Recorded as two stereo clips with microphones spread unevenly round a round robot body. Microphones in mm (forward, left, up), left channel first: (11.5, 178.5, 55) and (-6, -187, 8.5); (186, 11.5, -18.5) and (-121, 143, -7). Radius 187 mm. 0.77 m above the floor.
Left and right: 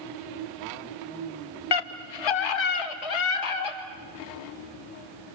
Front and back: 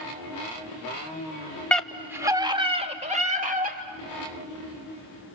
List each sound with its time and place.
1.7 s a scream: 65° left, 1.8 m; by 3.8 s 90° left, 4 m